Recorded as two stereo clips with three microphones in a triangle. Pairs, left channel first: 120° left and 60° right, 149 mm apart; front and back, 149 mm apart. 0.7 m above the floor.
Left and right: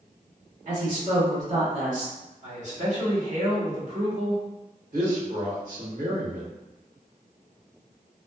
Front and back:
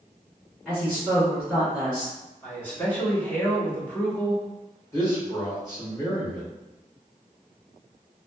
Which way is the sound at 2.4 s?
75° right.